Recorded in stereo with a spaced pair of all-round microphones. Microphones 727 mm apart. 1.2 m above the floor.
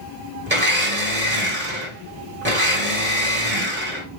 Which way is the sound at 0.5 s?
15° right (ahead or behind).